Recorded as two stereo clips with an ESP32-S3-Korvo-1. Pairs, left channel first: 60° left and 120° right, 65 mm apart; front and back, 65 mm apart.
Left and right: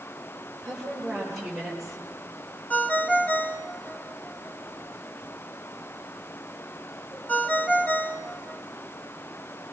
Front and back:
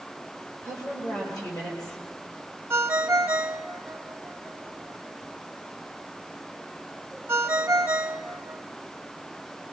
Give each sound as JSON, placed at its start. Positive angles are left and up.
{"t": 0.6, "sound": "a woman speaking", "azimuth_deg": -35, "distance_m": 9.5}
{"t": 2.7, "sound": "a ringtone", "azimuth_deg": 125, "distance_m": 1.4}